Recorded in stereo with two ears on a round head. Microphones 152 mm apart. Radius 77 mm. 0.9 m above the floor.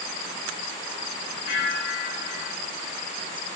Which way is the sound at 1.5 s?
70° left (ahead or behind).